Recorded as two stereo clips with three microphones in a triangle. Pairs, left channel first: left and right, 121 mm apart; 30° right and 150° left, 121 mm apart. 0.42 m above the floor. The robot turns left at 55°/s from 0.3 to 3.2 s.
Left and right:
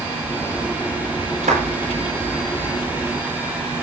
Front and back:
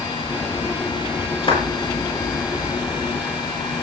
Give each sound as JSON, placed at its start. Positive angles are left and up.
{"t": 1.4, "sound": "a clap", "azimuth_deg": -75, "distance_m": 7.5}